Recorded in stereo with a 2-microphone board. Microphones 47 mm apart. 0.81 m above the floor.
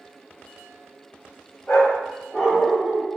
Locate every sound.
1.7 s a dog barking: 35° left (ahead or behind), 1.1 m; by 3.1 s 30° right (ahead or behind), 0.8 m